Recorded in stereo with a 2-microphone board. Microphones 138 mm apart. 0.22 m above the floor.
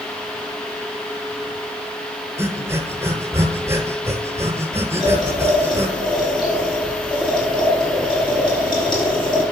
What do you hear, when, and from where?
2.4 s breathing: 20° right (ahead or behind), 0.8 m
5.0 s boiling: 35° left (ahead or behind), 3 m